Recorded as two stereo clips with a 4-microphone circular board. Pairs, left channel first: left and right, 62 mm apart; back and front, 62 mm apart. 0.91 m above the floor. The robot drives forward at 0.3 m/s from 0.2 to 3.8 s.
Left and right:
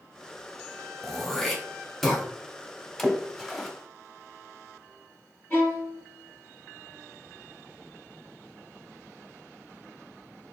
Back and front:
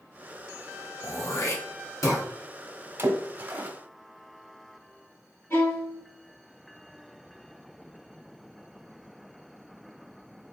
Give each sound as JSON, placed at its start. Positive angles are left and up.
{"t": 1.0, "sound": "throat clearing", "azimuth_deg": 175, "distance_m": 0.9}
{"t": 3.0, "sound": "a splash", "azimuth_deg": 5, "distance_m": 0.9}
{"t": 5.5, "sound": "a violin", "azimuth_deg": 145, "distance_m": 1.6}